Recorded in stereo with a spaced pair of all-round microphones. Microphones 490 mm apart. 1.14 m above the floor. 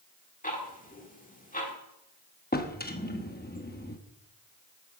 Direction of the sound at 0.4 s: 15° left (ahead or behind).